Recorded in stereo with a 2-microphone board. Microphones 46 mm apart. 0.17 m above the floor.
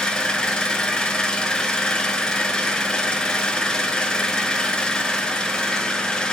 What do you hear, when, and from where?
0.0 s an engine running: 20° left (ahead or behind), 0.8 m